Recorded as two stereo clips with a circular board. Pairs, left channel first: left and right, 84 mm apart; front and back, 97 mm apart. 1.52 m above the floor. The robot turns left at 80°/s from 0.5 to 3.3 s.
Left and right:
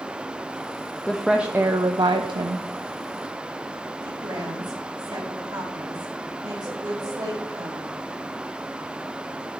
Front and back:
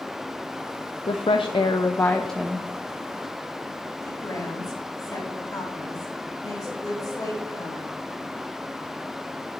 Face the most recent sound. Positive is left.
turn(degrees=-50)